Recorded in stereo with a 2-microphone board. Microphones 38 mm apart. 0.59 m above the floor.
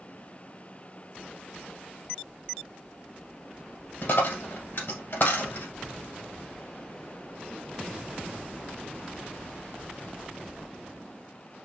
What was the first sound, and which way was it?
A dropped coin, 65° left (ahead or behind).